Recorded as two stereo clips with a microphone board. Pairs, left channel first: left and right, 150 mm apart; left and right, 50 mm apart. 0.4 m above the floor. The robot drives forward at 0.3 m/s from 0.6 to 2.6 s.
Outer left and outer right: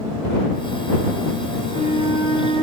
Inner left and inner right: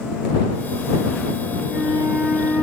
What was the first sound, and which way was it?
A flute, 45° right (ahead or behind).